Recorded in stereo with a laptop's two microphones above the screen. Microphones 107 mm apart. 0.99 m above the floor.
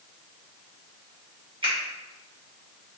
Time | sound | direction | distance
1.6 | a finger snap | 50° right (ahead or behind) | 1.7 m